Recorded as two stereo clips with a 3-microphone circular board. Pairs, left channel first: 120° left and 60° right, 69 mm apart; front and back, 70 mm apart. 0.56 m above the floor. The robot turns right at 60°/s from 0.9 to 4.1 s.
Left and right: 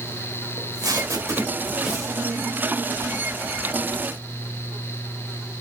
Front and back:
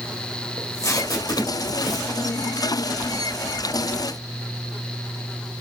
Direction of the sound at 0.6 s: 35° right.